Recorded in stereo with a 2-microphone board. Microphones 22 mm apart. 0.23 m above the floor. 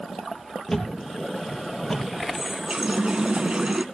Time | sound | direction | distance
0.7 | a thud | 30° left (ahead or behind) | 3 m
2.3 | a running tap | 40° right (ahead or behind) | 1.6 m